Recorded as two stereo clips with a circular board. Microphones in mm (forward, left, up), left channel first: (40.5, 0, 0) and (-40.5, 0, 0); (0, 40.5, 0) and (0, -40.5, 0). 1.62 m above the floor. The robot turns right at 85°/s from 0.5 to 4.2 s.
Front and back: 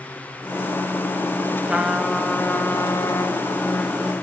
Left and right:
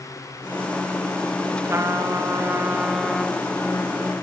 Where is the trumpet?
120° right, 1.7 m; by 4.1 s 95° left, 1.7 m.